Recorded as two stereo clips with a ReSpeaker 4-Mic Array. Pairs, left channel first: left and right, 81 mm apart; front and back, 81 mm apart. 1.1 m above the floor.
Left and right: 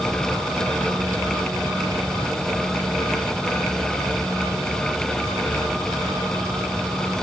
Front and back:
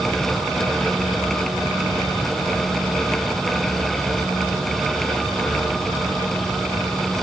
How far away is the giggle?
I don't hear a giggle.